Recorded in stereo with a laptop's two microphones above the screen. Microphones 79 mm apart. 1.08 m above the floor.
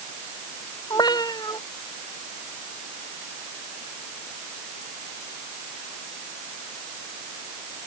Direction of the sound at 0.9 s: 55° left (ahead or behind).